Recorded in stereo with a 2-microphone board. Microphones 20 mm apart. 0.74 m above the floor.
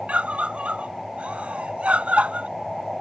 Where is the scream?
80° right.